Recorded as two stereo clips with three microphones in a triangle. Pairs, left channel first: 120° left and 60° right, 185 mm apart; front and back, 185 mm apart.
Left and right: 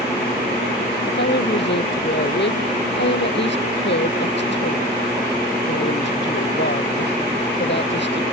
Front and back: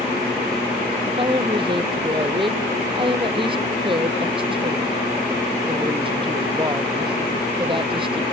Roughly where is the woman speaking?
Behind left.